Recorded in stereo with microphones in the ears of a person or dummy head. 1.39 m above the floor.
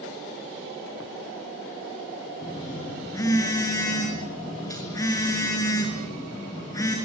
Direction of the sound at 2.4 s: 20° left (ahead or behind).